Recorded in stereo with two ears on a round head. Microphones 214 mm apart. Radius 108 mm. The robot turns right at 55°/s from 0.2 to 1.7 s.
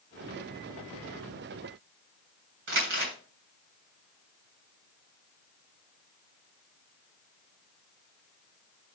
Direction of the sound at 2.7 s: 50° right (ahead or behind).